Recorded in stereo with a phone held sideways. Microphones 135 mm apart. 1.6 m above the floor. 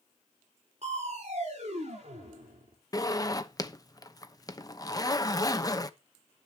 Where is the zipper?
30° left (ahead or behind), 0.9 m.